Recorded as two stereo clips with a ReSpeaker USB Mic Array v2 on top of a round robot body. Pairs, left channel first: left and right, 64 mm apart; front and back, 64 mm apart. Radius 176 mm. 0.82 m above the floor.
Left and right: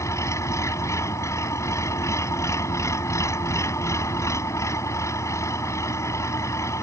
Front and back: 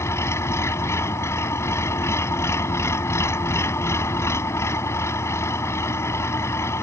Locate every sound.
0.0 s an engine running: 45° left